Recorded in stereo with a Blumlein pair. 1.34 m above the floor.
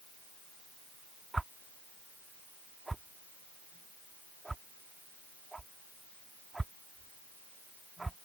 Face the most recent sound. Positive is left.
turn(degrees=-10)